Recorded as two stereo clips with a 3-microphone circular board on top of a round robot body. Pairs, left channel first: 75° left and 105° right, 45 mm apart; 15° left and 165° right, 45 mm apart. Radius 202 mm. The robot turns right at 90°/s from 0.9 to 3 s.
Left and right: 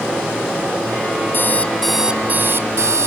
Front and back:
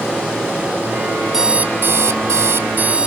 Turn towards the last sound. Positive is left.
turn(degrees=-95)